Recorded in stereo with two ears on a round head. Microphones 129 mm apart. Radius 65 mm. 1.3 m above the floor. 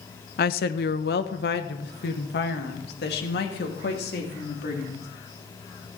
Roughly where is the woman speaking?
Left.